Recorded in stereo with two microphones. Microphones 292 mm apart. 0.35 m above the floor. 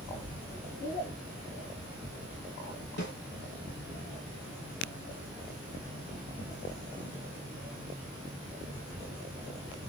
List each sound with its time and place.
3.0 s a snare drum: 35° left (ahead or behind), 1.4 m